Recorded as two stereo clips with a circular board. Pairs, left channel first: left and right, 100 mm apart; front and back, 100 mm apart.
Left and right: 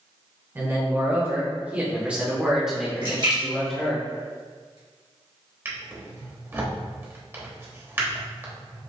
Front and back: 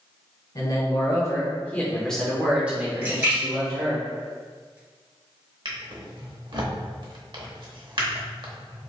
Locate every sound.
0.6 s a man speaking: 30° right, 1.3 m; by 4.0 s 165° left, 1.2 m
3.0 s a splash: 115° right, 2.0 m
5.7 s a drawer: 155° right, 0.9 m